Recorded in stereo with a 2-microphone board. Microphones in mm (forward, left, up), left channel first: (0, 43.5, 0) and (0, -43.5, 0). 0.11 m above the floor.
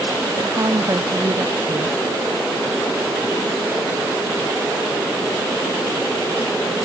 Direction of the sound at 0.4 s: 45° right (ahead or behind).